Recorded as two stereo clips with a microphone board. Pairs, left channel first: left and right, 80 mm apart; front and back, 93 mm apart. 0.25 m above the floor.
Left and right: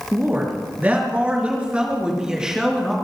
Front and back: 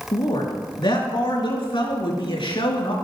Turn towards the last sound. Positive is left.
turn(degrees=-5)